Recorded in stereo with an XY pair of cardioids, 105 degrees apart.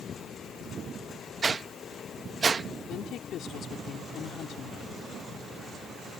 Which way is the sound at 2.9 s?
70° left.